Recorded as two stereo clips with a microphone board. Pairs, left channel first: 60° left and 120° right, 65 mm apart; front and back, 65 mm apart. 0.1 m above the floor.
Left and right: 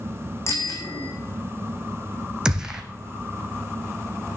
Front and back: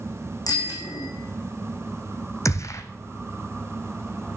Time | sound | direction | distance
0.5 | a bicycle bell | 15° left | 4.5 m
2.5 | a gunshot | 40° right | 1.3 m